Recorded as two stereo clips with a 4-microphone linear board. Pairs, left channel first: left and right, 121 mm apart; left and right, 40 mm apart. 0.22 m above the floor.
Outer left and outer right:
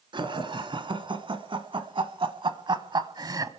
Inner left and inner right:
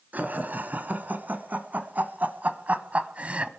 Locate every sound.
0.1 s laughter: 40° right (ahead or behind), 2 m; by 3.5 s 30° right (ahead or behind), 1.2 m